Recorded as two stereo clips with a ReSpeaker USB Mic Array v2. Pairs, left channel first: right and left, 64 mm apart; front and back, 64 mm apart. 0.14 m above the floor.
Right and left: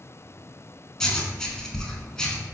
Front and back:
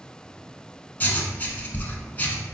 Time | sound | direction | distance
1.0 | writing | 20° right | 0.6 m